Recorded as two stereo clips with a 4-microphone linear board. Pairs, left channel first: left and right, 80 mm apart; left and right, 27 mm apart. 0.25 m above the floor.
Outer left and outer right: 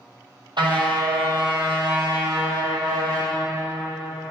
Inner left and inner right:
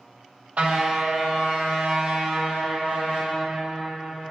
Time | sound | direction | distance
0.6 | a car horn | 70° right (ahead or behind) | 4.5 m